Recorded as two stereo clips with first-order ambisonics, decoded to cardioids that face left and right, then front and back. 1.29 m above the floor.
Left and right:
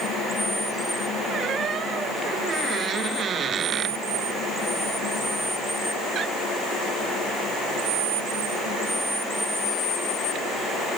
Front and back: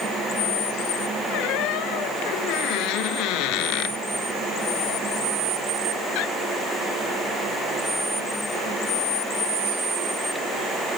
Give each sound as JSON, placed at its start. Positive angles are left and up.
{"t": 1.3, "sound": "a squeak", "azimuth_deg": -25}